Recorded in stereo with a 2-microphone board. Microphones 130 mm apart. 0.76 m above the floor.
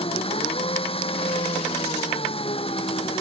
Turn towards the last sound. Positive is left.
turn(degrees=45)  # may be behind; listen again after turning